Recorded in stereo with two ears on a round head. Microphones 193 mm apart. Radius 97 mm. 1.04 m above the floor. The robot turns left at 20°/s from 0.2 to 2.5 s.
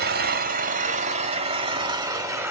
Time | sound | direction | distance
0.0 | an engine running | 120° right | 1.0 m